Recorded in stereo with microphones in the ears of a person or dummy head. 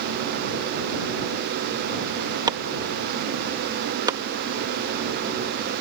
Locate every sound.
2.5 s chopping: 25° right (ahead or behind)